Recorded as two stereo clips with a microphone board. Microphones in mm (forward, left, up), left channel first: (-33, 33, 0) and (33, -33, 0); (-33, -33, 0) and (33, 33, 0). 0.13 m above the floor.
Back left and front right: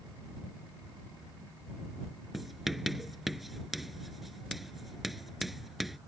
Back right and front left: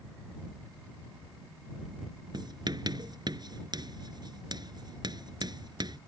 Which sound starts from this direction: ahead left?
Writing, at 2.3 s.